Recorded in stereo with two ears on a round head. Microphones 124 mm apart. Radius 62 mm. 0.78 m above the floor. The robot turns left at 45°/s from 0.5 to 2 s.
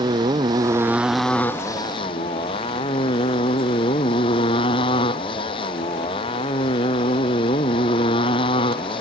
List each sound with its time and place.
0.0 s a motorcycle: 150° right; by 9.0 s 145° left